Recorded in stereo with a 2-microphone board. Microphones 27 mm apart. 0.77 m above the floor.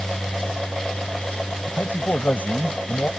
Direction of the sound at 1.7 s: 70° left (ahead or behind).